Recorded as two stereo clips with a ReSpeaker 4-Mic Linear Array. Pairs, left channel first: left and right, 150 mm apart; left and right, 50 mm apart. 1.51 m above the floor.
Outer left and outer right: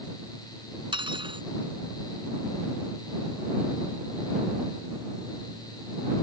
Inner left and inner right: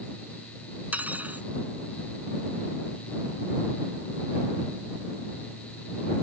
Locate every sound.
0.9 s cutlery clinking: 35° right (ahead or behind)